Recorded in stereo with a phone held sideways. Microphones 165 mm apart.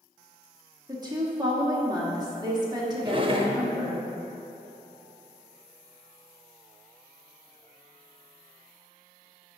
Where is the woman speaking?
25° right (ahead or behind), 1.4 m.